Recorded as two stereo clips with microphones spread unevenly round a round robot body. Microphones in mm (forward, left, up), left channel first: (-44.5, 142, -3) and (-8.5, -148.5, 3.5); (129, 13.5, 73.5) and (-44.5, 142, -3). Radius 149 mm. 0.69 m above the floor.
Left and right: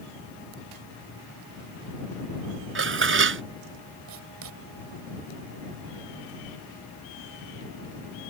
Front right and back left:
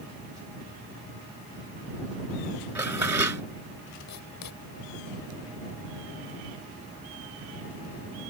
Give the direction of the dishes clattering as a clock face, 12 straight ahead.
4 o'clock.